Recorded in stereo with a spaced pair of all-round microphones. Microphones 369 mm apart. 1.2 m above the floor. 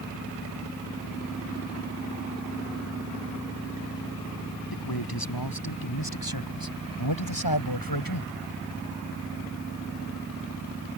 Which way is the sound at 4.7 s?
75° left (ahead or behind).